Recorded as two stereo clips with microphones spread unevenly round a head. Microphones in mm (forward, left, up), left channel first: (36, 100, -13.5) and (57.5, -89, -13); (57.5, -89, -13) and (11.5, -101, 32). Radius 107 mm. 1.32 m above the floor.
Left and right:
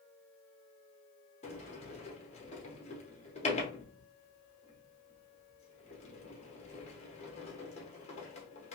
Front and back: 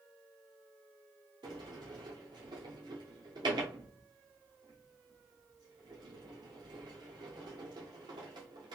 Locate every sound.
1.4 s a sliding door: 150° left, 0.6 m